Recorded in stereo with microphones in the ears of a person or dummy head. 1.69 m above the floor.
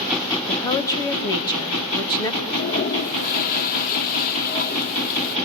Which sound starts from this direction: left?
A toilet flushing, at 2.4 s.